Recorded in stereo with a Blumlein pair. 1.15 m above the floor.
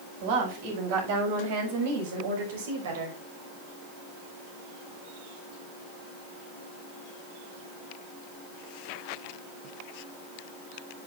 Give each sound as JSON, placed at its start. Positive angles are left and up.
{"t": 0.2, "sound": "a woman speaking", "azimuth_deg": -50, "distance_m": 7.5}